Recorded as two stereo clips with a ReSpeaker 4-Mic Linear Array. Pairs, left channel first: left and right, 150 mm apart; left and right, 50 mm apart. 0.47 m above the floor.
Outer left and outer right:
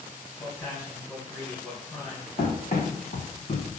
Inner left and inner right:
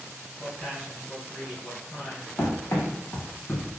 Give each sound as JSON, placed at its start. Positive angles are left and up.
{"t": 0.4, "sound": "a man speaking", "side_deg": 15, "distance_m": 2.5}
{"t": 2.4, "sound": "running footsteps", "side_deg": 60, "distance_m": 1.6}